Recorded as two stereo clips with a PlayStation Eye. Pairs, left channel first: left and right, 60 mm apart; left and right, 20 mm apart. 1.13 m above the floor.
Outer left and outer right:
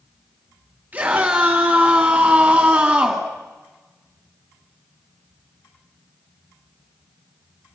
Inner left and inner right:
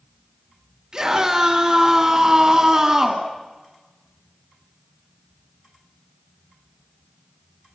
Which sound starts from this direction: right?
A scream, at 0.9 s.